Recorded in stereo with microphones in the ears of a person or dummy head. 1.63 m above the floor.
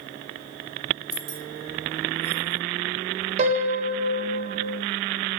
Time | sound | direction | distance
1.1 | keys jangling | 50° right (ahead or behind) | 1.0 m
3.4 | a piano | 40° right (ahead or behind) | 1.6 m